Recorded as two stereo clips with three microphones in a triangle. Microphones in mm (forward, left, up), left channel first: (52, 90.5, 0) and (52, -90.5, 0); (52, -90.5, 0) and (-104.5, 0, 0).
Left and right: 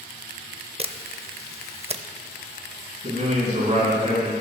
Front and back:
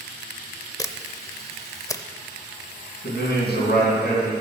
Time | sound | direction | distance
0.8 | a camera shutter | 85° right | 0.5 m
3.0 | a man speaking | 40° right | 3 m